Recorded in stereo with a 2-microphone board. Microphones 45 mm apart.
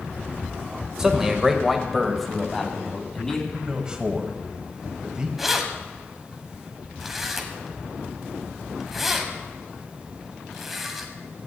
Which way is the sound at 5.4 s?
5° right (ahead or behind).